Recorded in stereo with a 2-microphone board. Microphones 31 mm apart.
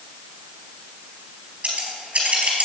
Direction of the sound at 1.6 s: 45° right (ahead or behind).